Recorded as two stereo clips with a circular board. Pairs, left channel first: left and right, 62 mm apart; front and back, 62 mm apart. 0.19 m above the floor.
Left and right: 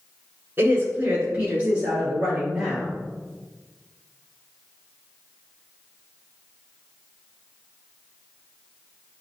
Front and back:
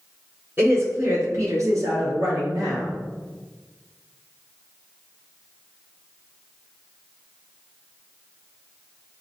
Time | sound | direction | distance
0.6 | a woman speaking | 140° right | 1.8 m